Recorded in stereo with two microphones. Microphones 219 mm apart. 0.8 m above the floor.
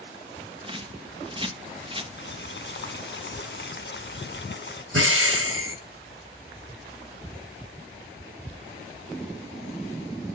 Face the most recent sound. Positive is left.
turn(degrees=-75)  # may be behind; listen again after turning